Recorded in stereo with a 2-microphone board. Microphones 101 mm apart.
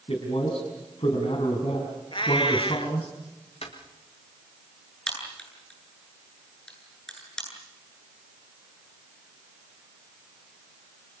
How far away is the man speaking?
About 4.5 m.